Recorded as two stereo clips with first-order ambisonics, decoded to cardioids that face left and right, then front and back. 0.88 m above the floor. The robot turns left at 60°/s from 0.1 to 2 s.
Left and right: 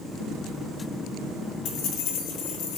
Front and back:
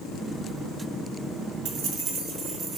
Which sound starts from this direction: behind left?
Keys jangling, at 1.6 s.